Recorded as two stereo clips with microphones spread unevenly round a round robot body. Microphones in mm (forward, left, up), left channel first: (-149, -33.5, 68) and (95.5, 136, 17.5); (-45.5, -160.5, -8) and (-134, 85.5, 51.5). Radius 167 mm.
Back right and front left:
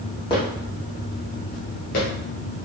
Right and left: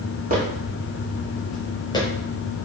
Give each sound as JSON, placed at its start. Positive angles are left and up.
{"t": 0.3, "sound": "footsteps", "azimuth_deg": 150, "distance_m": 1.6}